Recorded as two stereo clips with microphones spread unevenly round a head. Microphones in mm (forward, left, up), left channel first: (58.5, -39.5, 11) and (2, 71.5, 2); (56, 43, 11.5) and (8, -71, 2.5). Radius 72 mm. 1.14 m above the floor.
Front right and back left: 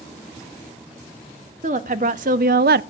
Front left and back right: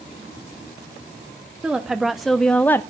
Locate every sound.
1.6 s a woman speaking: 160° left, 1.4 m; by 2.8 s 140° left, 0.5 m